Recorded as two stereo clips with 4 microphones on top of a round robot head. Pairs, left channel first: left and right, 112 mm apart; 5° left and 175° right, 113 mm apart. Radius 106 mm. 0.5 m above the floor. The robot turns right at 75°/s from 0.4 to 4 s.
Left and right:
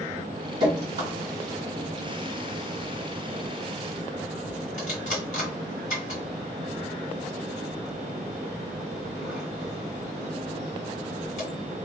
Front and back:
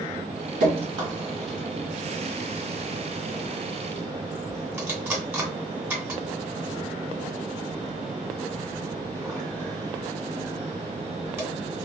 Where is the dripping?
145° right, 1.9 m; by 11.5 s 110° left, 1.9 m.